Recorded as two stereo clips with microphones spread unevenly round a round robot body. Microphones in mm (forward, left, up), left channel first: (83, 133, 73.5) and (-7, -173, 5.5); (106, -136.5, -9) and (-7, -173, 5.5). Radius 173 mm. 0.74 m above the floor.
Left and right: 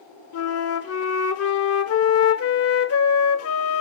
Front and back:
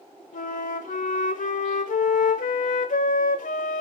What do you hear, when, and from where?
0.3 s a flute: 30° left, 1.0 m